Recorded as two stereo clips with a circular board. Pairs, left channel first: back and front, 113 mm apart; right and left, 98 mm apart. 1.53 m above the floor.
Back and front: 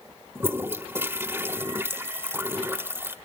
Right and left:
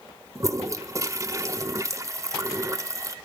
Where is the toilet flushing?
60° left, 1.5 m.